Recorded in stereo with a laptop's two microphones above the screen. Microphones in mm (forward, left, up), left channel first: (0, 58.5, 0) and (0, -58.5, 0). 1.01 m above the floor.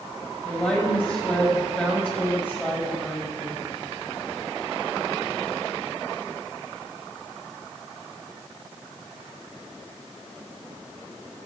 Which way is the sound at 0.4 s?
15° left (ahead or behind).